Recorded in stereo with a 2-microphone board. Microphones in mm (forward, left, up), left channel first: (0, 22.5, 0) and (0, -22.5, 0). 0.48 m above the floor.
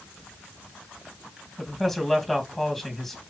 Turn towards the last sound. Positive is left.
turn(degrees=5)  # may be behind; listen again after turning